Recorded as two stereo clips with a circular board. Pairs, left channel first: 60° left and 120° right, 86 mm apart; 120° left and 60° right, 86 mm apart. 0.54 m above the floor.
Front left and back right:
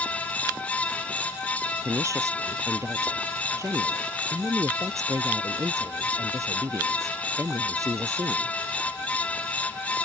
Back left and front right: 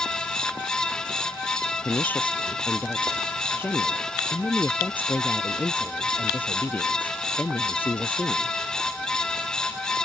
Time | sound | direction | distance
1.8 | a woman speaking | 170° right | ?